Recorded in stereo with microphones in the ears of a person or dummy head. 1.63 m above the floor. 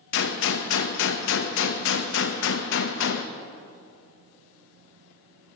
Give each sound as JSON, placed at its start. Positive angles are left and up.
{"t": 0.1, "sound": "a gunshot", "side_deg": 65, "distance_m": 0.8}